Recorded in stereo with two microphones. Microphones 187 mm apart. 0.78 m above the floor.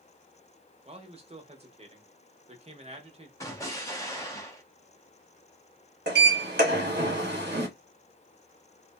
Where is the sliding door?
65° right (ahead or behind), 1.1 m.